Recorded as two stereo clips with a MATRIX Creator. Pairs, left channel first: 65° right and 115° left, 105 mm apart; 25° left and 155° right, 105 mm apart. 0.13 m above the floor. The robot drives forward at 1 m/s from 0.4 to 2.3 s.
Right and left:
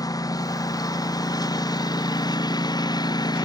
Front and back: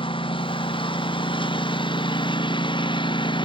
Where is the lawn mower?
15° right.